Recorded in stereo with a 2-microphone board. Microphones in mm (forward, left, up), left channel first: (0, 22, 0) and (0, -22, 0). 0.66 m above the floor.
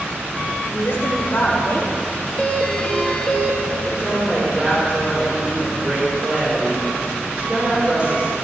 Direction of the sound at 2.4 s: 20° left (ahead or behind).